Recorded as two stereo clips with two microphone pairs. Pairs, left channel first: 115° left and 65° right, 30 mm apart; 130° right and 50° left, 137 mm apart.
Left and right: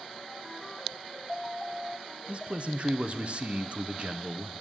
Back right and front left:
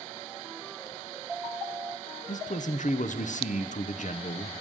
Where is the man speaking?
110° right, 0.8 m.